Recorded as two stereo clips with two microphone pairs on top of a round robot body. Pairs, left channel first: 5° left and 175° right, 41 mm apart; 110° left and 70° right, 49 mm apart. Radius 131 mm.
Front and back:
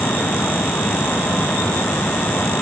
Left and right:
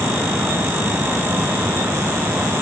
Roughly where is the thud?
No thud in this recording.